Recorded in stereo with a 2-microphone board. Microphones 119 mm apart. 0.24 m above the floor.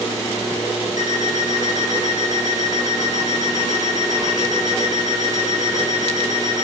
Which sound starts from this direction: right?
An alarm clock, at 1.0 s.